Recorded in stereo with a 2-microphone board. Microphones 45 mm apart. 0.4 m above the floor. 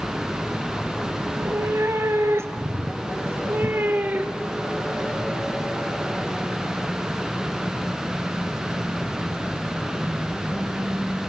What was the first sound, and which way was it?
A cat meowing, 80° right.